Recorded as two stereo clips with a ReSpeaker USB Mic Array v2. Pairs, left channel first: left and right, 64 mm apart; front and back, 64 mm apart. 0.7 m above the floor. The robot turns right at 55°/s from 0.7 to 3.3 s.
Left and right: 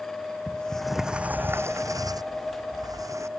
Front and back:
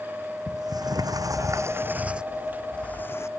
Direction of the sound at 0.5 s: 170° left.